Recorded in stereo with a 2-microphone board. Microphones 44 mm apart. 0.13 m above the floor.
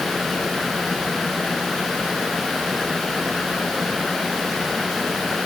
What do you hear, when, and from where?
Only background noise.